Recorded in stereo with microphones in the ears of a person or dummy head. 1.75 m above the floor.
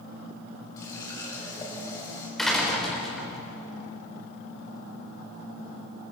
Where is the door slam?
Centre (ahead or behind), 5 m.